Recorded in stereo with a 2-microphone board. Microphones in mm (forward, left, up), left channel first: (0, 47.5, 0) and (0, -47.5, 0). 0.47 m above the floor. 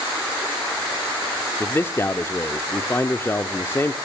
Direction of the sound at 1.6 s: 25° left (ahead or behind).